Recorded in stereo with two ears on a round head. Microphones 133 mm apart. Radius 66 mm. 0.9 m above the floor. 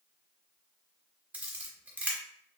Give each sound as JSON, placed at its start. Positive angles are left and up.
{"t": 1.3, "sound": "a camera shutter", "side_deg": -10, "distance_m": 0.9}